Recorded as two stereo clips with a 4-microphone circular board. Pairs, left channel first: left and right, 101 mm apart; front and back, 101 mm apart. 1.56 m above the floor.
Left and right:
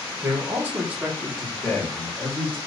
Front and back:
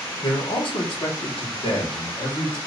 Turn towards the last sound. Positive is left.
turn(degrees=15)